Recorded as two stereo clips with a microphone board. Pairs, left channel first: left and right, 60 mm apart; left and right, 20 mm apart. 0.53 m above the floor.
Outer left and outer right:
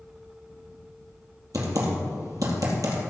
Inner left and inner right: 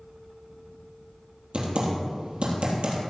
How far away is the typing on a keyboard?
About 3.5 m.